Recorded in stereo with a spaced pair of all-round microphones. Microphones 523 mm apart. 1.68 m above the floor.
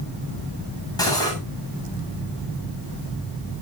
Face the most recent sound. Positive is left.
turn(degrees=5)  # may be behind; listen again after turning